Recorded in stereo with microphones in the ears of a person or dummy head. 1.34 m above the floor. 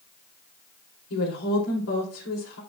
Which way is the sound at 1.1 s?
90° left.